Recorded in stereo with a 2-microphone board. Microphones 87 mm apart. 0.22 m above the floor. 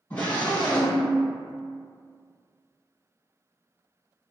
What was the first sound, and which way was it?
A scream, 15° left (ahead or behind).